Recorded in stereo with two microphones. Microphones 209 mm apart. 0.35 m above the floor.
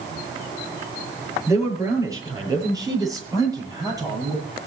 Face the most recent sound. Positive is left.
turn(degrees=-15)  # may be behind; listen again after turning